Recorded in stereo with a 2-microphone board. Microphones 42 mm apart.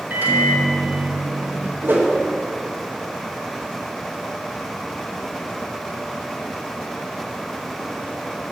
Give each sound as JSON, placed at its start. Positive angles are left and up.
{"t": 0.1, "sound": "a microwave", "side_deg": -50, "distance_m": 1.1}
{"t": 1.8, "sound": "a whoosh", "side_deg": -55, "distance_m": 1.3}